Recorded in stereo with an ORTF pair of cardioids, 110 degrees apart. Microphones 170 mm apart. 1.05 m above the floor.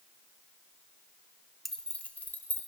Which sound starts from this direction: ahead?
Keys jangling, at 1.6 s.